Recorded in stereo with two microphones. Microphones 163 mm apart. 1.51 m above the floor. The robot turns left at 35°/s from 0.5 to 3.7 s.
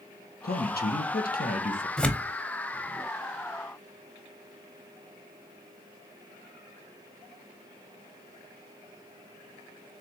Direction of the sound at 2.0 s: 5° left (ahead or behind).